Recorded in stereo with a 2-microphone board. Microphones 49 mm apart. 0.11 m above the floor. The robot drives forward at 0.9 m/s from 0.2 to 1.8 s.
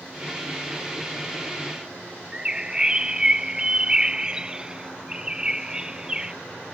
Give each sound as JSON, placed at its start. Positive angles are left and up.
{"t": 2.3, "sound": "a bird", "side_deg": -15}